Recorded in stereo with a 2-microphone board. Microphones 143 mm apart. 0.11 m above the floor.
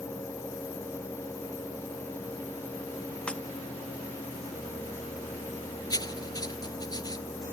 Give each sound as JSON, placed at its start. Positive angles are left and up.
{"t": 3.3, "sound": "breaking glass", "side_deg": 5}
{"t": 5.9, "sound": "writing", "side_deg": 30}